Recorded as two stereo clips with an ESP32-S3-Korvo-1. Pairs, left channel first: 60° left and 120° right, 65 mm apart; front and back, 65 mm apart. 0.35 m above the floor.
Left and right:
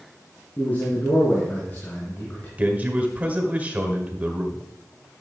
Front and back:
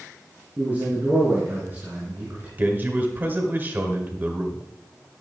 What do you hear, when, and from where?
0.6 s a man speaking: 120° left, 4.5 m
2.6 s a man speaking: 160° right, 1.6 m